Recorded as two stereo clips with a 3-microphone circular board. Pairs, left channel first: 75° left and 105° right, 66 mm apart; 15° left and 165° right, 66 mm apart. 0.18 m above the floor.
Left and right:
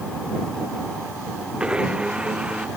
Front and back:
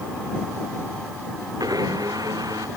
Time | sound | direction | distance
1.6 | a blender | straight behind | ?